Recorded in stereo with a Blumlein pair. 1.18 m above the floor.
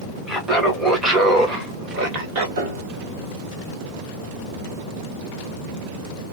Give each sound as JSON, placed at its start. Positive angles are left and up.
{"t": 0.3, "sound": "laughter", "azimuth_deg": 5, "distance_m": 1.1}
{"t": 2.6, "sound": "a piano", "azimuth_deg": -60, "distance_m": 1.4}